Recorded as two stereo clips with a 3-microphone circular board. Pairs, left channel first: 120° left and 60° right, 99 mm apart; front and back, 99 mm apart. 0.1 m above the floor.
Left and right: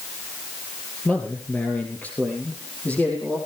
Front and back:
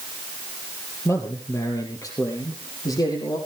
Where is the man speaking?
50° left, 2.5 m; by 3.4 s 45° left, 5 m.